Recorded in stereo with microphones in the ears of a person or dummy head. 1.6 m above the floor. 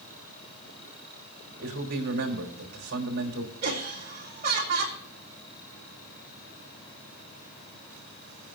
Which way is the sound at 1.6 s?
60° right (ahead or behind).